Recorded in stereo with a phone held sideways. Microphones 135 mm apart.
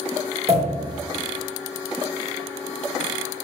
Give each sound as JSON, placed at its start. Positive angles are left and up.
{"t": 0.5, "sound": "a pop", "side_deg": -50, "distance_m": 2.5}